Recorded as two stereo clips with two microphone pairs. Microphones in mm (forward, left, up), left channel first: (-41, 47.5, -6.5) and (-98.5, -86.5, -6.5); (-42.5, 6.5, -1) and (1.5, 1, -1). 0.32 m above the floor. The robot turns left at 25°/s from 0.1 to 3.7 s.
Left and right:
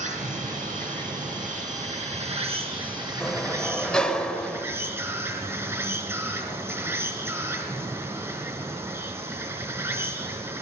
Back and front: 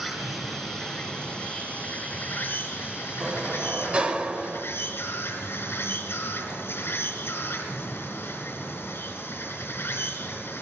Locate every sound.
0.0 s an insect: 95° right, 4.5 m; by 10.6 s 175° left, 4.5 m
3.2 s a sliding door: 5° right, 1.0 m; by 4.7 s 15° right, 1.0 m